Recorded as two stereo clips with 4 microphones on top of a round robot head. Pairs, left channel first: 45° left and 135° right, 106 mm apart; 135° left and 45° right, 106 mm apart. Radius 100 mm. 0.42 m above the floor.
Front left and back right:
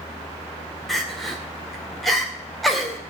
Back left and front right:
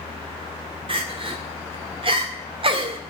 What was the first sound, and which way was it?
Crying, 40° right.